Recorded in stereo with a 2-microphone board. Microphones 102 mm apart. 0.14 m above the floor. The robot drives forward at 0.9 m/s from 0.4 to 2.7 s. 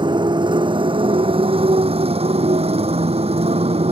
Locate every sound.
0.0 s a motorcycle: 50° right (ahead or behind); by 3.9 s 80° right